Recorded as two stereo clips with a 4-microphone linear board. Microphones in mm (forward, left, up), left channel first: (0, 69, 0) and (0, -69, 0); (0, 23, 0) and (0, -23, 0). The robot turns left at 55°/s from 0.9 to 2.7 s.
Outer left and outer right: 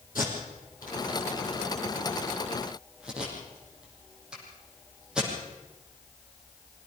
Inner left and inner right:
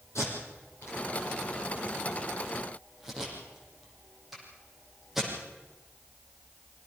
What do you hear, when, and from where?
0.1 s tape being pulled: 80° left, 6 m; by 5.3 s 5° right (ahead or behind), 6 m